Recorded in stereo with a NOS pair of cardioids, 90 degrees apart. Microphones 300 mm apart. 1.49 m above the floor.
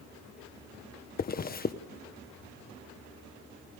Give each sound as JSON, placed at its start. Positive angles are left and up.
{"t": 1.2, "sound": "a zipper", "azimuth_deg": 30, "distance_m": 1.2}